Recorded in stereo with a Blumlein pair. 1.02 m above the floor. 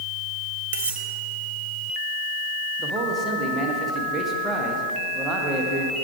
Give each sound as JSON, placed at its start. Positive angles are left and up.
{"t": 0.7, "sound": "cutlery clinking", "azimuth_deg": -60, "distance_m": 0.9}
{"t": 2.8, "sound": "a man speaking", "azimuth_deg": -10, "distance_m": 1.2}